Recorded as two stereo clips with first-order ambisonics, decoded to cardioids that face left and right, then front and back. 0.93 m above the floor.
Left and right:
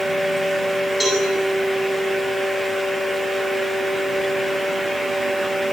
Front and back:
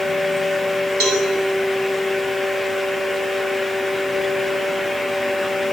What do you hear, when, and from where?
1.0 s a cowbell: 165° left, 9 m